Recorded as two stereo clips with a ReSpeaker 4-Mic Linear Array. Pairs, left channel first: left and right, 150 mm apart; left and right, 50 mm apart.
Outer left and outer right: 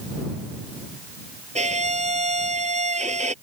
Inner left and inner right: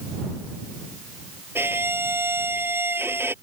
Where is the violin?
55° right (ahead or behind).